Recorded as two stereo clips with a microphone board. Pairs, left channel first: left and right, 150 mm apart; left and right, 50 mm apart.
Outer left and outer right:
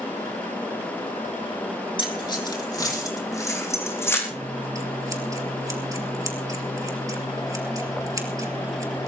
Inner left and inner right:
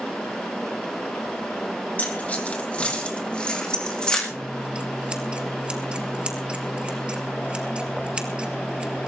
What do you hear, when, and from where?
2.0 s keys jangling: 35° left (ahead or behind), 2.5 m; by 4.2 s 15° left (ahead or behind), 4.5 m
4.3 s scissors: 20° right (ahead or behind), 2 m